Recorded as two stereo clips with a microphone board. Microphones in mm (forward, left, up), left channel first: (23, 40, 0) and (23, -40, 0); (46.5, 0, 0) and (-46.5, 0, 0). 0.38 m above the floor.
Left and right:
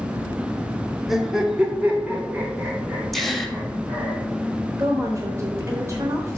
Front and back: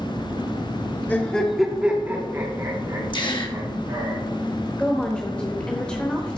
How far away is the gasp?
About 1.2 m.